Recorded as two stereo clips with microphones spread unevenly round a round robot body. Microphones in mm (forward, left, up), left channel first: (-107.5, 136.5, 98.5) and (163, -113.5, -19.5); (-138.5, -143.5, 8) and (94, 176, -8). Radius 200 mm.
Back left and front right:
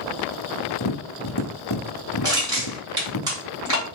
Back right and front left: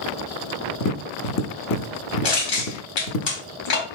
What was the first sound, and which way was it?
Tapping, 175° right.